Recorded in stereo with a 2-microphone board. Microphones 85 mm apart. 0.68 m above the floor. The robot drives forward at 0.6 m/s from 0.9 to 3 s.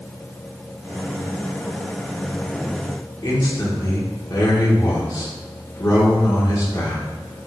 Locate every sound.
3.2 s a man speaking: 50° left (ahead or behind), 1.6 m